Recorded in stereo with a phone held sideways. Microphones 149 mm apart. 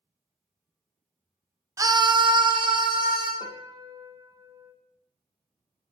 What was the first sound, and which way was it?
A scream, 20° right (ahead or behind).